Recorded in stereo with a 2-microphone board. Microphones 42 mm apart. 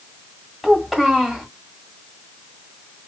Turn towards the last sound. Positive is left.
turn(degrees=0)  # may be behind; listen again after turning